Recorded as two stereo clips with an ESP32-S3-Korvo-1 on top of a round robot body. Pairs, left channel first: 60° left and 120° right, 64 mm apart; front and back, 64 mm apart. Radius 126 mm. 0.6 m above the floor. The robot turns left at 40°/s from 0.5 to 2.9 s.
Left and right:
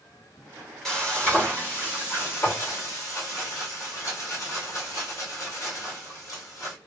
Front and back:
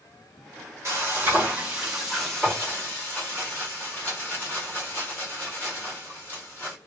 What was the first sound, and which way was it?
Frying, 140° left.